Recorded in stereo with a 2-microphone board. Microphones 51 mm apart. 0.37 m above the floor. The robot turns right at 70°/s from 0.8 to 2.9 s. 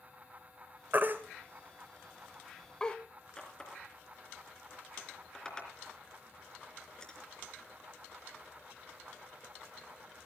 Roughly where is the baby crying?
Right.